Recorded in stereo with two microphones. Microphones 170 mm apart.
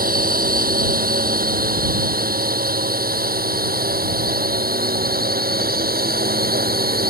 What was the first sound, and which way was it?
A drone, 60° right (ahead or behind).